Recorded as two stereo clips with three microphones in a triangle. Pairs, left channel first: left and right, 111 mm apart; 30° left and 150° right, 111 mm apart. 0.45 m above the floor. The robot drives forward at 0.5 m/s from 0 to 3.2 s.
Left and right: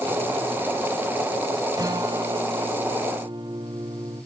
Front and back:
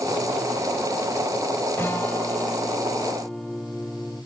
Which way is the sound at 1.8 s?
40° right.